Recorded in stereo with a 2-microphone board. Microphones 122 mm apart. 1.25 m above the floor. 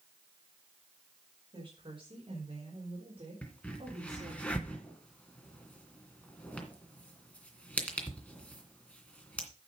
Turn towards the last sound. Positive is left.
turn(degrees=10)  # may be behind; listen again after turning